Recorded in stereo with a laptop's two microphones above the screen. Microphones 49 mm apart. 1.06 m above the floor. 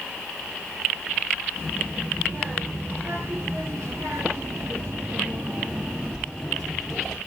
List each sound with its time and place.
1.6 s a child speaking: 55° right (ahead or behind), 3 m; by 7.2 s 5° left (ahead or behind), 1.6 m